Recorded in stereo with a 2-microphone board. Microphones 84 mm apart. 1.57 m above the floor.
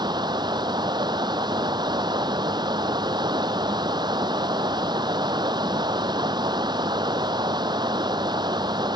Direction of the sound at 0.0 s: 60° right (ahead or behind).